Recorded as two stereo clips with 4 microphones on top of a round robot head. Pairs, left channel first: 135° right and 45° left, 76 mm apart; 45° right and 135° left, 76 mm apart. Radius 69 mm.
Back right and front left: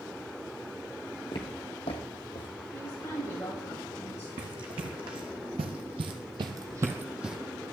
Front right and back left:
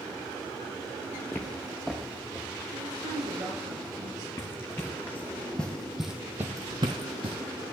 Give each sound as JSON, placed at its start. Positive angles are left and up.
{"t": 1.3, "sound": "footsteps", "azimuth_deg": -110, "distance_m": 1.0}
{"t": 2.7, "sound": "a woman speaking", "azimuth_deg": 170, "distance_m": 9.0}
{"t": 4.4, "sound": "running footsteps", "azimuth_deg": 15, "distance_m": 2.0}